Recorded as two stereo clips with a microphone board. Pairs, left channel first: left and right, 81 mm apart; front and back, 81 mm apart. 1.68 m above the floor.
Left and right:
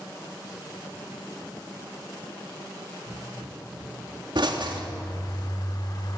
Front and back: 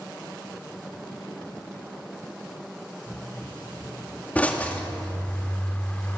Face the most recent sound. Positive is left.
turn(degrees=70)